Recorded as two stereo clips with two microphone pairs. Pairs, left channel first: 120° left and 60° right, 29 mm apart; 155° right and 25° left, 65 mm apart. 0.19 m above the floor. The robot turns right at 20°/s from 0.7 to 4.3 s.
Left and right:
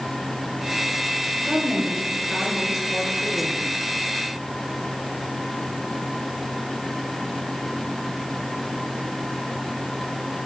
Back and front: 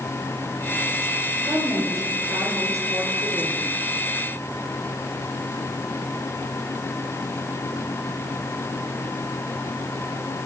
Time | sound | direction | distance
1.5 | a woman speaking | 5° right | 2.5 m